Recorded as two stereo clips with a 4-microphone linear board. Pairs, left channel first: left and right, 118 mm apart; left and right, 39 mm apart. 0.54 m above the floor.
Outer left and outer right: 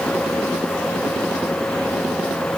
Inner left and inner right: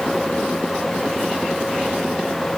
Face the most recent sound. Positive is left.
No sound to turn to.